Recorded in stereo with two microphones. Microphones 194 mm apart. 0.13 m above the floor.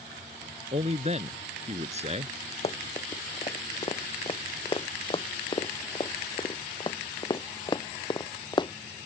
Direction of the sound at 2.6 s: 30° left (ahead or behind).